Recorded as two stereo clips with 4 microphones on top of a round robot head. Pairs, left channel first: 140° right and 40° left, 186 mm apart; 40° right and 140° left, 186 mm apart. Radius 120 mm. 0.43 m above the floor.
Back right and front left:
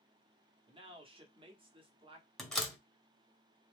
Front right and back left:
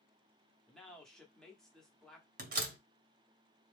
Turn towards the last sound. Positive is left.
turn(degrees=135)